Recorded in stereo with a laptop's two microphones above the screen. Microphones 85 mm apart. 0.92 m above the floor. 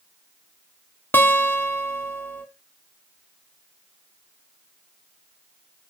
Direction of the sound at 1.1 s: 25° left (ahead or behind).